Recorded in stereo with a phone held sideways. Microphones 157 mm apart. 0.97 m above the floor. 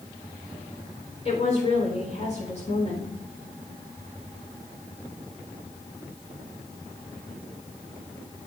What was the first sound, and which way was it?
A woman speaking, 45° left (ahead or behind).